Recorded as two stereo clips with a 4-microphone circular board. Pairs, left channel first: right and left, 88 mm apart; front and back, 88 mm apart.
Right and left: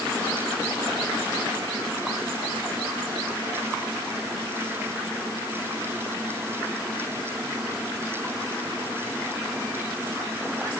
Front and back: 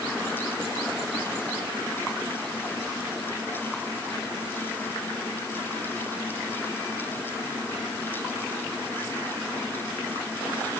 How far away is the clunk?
I don't hear a clunk.